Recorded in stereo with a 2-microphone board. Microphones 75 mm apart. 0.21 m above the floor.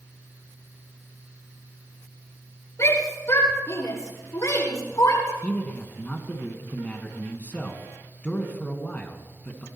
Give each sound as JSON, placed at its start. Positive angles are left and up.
{"t": 2.8, "sound": "a shout", "side_deg": 45, "distance_m": 8.5}
{"t": 5.4, "sound": "a man speaking", "side_deg": 20, "distance_m": 2.5}